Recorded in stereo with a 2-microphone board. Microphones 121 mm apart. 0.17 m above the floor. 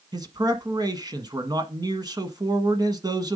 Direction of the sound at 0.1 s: 35° right (ahead or behind).